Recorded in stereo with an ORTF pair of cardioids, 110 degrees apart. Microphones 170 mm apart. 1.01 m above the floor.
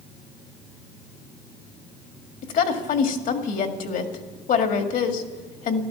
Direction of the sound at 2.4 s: 60° left.